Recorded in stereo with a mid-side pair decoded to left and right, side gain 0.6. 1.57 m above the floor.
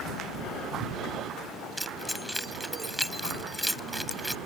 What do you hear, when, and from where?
1.8 s keys jangling: straight ahead